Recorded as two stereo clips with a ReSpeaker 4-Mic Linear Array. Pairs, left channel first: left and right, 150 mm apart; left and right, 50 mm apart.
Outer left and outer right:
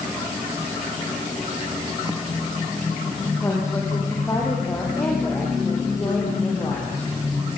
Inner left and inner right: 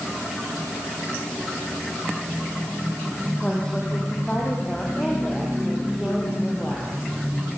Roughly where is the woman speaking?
Left.